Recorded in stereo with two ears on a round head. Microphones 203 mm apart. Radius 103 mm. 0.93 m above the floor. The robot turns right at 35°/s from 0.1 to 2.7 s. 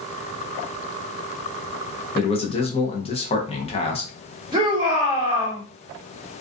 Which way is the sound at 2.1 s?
25° left (ahead or behind).